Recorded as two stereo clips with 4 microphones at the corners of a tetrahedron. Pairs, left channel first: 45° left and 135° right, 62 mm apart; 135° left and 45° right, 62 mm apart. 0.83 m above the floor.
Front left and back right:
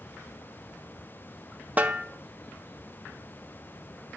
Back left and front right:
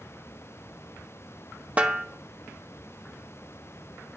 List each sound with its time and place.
1.8 s a snare drum: 95° right, 0.8 m